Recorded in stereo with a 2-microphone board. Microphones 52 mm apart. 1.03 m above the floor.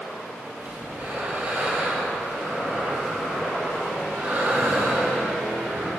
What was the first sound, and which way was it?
Breathing, 35° right (ahead or behind).